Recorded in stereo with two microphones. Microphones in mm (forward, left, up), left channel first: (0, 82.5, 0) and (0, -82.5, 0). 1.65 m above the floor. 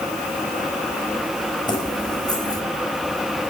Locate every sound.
1.7 s keys jangling: 25° left (ahead or behind), 5.5 m